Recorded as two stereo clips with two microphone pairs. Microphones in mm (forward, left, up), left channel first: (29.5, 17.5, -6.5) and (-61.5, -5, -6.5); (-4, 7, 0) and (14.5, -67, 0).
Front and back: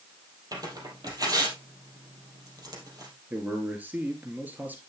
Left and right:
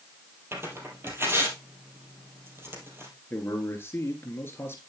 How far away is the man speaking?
About 1.9 m.